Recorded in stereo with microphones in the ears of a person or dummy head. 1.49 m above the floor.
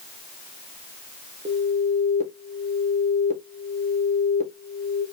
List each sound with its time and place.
1.4 s an alarm: 40° right (ahead or behind), 1.3 m